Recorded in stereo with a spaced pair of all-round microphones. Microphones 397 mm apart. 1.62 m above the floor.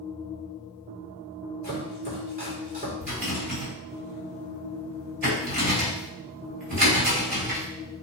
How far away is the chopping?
About 4 m.